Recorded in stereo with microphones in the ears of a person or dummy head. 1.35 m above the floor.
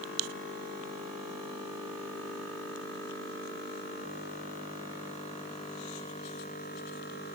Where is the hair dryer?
I don't hear a hair dryer.